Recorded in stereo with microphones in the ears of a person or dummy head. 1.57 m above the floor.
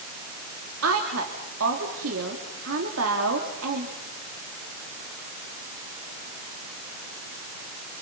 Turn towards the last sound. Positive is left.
turn(degrees=-85)